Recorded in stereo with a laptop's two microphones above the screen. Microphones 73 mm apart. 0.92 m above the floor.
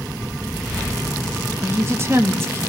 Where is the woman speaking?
35° right (ahead or behind), 2.5 m.